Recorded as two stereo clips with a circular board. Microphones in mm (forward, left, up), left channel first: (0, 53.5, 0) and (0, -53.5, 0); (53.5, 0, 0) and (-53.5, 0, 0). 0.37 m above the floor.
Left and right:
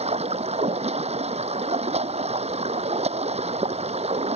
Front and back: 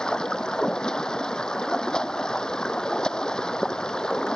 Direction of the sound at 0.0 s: 85° right.